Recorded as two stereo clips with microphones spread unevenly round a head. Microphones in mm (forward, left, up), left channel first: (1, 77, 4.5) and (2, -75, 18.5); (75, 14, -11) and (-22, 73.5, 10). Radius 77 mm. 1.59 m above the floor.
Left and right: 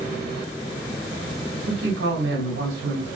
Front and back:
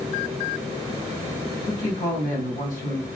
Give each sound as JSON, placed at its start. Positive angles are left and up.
{"t": 1.7, "sound": "a man speaking", "azimuth_deg": -75, "distance_m": 1.8}